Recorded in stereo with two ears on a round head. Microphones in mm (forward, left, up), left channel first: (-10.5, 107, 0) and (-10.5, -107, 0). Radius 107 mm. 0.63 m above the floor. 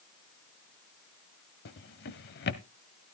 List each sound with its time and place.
1.6 s a drawer: 45° left (ahead or behind), 0.7 m